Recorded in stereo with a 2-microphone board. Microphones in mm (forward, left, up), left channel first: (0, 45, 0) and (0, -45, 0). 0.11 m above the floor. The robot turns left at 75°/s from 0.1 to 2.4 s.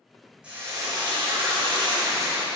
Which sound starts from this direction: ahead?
Frying, at 0.4 s.